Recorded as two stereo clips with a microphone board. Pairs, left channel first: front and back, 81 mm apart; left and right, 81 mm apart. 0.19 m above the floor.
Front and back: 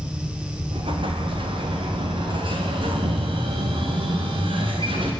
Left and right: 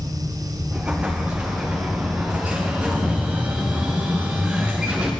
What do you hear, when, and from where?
0.7 s an explosion: 165° right, 5 m